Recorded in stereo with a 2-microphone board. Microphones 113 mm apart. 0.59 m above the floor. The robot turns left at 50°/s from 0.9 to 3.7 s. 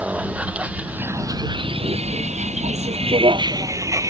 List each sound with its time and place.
0.0 s a vehicle: 10° right (ahead or behind); by 4.1 s 30° right (ahead or behind)